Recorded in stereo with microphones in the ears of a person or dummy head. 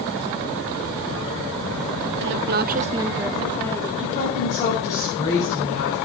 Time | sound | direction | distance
2.2 | a woman speaking | 55° right (ahead or behind) | 0.9 m
4.0 | a woman speaking | 35° left (ahead or behind) | 7.5 m